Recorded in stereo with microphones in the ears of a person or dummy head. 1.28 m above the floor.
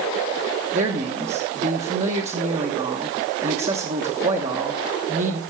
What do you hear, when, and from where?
0.7 s a man speaking: 30° right (ahead or behind), 1.3 m